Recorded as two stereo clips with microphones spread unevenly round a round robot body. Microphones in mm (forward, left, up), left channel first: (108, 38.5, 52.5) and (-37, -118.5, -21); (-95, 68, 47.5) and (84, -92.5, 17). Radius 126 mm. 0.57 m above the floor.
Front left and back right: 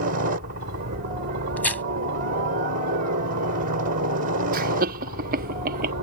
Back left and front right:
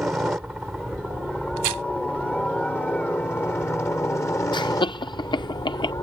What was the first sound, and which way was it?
A helicopter, 125° right.